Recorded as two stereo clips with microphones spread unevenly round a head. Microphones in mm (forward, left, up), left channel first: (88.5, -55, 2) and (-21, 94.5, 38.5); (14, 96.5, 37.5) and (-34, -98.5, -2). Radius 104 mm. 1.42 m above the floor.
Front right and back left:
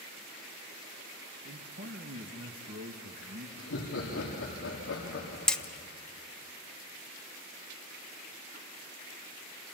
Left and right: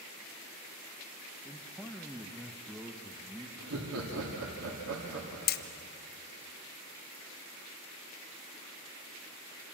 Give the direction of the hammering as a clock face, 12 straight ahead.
11 o'clock.